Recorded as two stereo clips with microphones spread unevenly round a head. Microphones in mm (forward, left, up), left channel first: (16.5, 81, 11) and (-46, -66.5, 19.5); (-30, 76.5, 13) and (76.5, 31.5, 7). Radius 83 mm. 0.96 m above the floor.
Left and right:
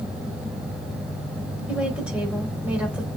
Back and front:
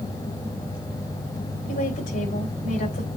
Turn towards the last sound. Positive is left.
turn(degrees=160)